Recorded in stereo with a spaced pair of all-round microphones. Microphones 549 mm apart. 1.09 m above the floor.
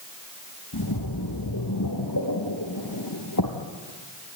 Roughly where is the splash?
Left.